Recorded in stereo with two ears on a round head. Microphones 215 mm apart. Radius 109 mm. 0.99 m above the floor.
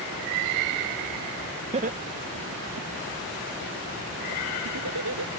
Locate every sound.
1.7 s laughter: 25° right (ahead or behind); by 5.3 s 80° right